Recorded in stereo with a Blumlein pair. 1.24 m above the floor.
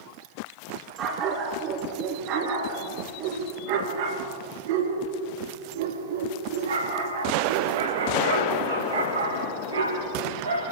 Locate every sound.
1.0 s a dog barking: 30° right, 4.5 m; by 10.6 s 80° right, 7 m